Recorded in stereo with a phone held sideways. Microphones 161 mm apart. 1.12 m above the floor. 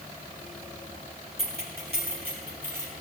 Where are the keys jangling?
85° right, 2.5 m; by 2.9 s 75° right (ahead or behind), 3.5 m.